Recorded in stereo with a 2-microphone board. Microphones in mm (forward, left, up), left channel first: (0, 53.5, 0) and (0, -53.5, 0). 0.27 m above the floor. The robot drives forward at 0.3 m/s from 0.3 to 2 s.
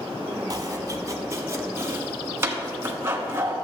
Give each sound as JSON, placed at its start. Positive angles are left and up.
{"t": 0.5, "sound": "chopping", "side_deg": -40, "distance_m": 0.7}